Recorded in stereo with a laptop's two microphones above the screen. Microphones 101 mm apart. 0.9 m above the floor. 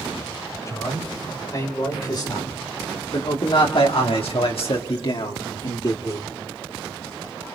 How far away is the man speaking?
About 4.5 m.